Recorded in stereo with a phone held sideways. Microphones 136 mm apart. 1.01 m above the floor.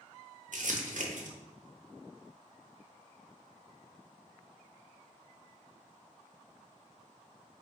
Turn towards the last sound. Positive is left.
turn(degrees=-70)  # may be behind; listen again after turning